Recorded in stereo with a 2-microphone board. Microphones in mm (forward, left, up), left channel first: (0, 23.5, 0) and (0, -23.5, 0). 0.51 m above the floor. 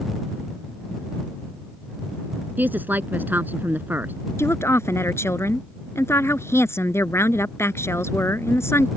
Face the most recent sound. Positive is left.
turn(degrees=65)  # may be behind; listen again after turning